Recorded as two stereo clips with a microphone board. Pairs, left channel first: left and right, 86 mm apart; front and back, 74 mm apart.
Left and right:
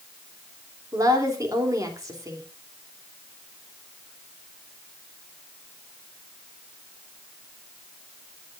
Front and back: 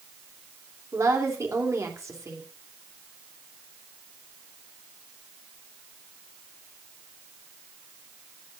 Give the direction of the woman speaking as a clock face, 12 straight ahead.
5 o'clock.